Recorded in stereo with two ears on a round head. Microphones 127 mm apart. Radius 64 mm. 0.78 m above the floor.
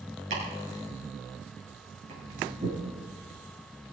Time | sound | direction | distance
0.3 | chopping | 50° right (ahead or behind) | 7 m